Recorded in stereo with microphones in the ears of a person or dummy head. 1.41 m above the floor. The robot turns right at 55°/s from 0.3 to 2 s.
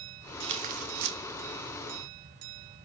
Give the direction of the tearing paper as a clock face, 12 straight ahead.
5 o'clock.